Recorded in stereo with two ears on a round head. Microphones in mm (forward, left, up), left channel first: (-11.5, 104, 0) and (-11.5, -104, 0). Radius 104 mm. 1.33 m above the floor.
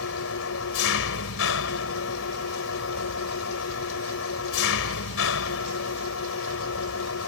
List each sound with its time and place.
0.0 s an engine running: 60° left (ahead or behind)